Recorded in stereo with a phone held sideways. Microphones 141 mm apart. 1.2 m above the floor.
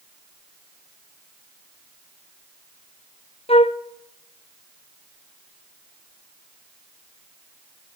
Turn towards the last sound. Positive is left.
turn(degrees=45)  # may be behind; listen again after turning